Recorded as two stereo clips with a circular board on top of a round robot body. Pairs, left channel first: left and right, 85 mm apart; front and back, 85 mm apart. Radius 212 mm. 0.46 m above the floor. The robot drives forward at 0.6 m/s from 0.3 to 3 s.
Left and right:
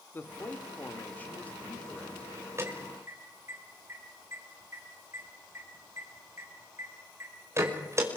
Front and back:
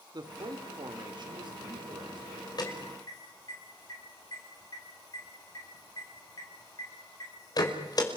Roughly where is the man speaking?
Behind left.